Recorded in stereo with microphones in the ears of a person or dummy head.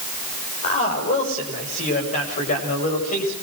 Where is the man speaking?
40° left (ahead or behind), 8 m.